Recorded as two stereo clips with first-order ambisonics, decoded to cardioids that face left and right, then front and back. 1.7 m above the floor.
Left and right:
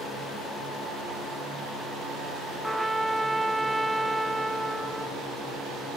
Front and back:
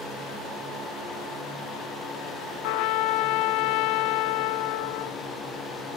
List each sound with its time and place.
2.6 s a trumpet: 5° right, 0.6 m